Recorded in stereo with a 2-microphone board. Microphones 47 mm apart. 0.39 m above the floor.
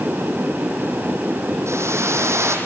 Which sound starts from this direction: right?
A whoosh, at 1.7 s.